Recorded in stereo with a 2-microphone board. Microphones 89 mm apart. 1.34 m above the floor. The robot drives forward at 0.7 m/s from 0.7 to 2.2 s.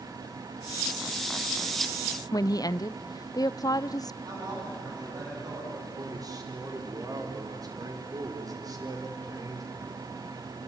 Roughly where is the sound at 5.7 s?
Right.